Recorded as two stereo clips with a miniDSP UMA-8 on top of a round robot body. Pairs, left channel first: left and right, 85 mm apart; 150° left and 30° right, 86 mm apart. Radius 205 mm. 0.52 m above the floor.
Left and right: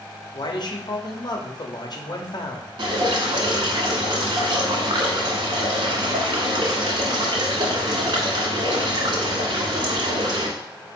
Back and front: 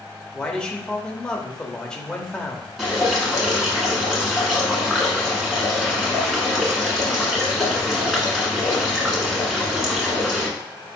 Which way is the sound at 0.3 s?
70° left.